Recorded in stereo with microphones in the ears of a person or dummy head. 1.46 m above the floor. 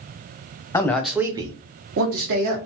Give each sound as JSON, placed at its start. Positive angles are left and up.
{"t": 0.7, "sound": "a man speaking", "side_deg": 20, "distance_m": 0.7}